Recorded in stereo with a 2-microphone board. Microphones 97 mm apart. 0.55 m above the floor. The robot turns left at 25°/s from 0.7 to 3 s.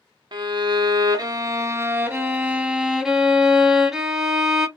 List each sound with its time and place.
0.3 s a violin: 115° right, 0.6 m; by 4.7 s 175° right, 0.6 m